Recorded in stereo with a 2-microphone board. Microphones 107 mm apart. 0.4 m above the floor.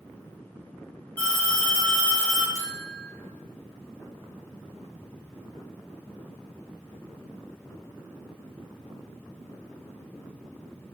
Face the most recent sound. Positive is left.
turn(degrees=-30)  # may be behind; listen again after turning